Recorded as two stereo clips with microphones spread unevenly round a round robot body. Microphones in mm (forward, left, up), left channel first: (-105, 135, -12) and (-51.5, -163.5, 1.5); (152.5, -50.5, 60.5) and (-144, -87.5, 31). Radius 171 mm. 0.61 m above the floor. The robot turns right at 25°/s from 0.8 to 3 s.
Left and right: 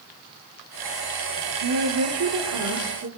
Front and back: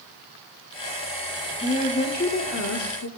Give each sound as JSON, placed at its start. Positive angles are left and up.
{"t": 1.6, "sound": "a woman speaking", "azimuth_deg": -65, "distance_m": 1.7}